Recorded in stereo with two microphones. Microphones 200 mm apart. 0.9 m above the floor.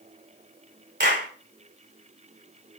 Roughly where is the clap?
Right.